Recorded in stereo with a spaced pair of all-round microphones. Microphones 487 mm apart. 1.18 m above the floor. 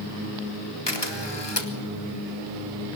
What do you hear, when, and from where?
0.9 s a camera shutter: 55° left (ahead or behind), 2.5 m